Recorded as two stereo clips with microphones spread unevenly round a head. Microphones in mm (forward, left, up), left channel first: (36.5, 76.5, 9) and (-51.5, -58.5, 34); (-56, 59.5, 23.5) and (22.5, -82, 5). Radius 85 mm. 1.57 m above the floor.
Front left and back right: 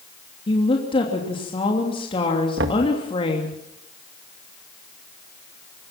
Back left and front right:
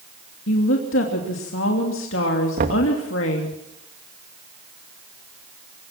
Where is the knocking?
100° right, 2.0 m.